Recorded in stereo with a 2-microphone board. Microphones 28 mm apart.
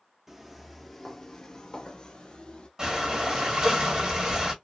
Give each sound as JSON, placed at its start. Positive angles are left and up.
{"t": 0.3, "sound": "footsteps", "side_deg": -5, "distance_m": 0.9}
{"t": 2.8, "sound": "breathing", "side_deg": -25, "distance_m": 1.7}